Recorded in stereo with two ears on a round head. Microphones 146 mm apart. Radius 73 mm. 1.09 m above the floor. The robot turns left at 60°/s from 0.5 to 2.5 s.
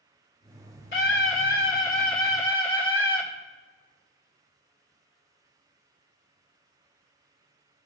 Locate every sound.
0.9 s a scream: 80° left, 3.5 m; by 3.2 s 15° right, 3.5 m